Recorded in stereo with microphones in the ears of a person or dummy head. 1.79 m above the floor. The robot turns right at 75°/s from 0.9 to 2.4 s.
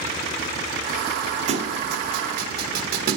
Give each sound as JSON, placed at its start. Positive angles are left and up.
{"t": 1.5, "sound": "a thud", "side_deg": -40, "distance_m": 3.0}